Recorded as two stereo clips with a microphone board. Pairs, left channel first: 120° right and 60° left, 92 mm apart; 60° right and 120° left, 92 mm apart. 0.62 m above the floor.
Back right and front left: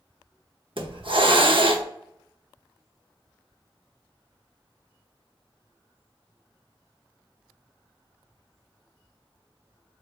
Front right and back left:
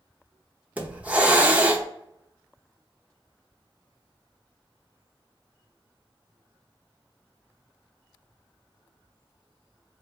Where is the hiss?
45° left, 0.6 m.